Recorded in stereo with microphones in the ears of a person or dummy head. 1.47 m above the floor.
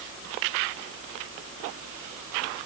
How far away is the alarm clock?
I don't hear an alarm clock.